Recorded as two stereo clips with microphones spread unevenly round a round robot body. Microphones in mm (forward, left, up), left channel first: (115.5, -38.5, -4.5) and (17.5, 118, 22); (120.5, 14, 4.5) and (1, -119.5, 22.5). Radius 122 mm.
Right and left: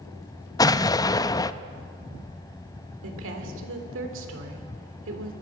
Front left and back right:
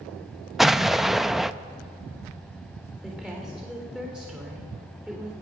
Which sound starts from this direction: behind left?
A woman speaking, at 3.0 s.